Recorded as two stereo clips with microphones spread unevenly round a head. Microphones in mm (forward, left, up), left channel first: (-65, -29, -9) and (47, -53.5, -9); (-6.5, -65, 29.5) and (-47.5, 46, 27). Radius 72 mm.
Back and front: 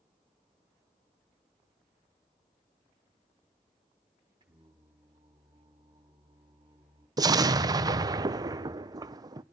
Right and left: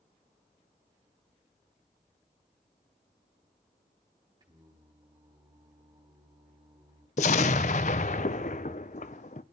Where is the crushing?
No crushing in this recording.